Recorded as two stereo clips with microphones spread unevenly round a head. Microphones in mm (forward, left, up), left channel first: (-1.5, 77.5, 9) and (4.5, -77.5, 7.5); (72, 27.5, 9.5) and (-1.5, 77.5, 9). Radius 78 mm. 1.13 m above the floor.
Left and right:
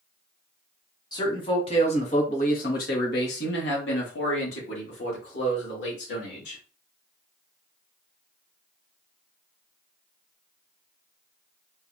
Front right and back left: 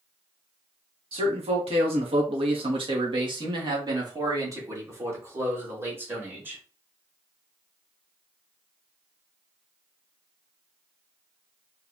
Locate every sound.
1.1 s a man speaking: 160° left, 1.6 m; by 6.6 s 80° left, 2.5 m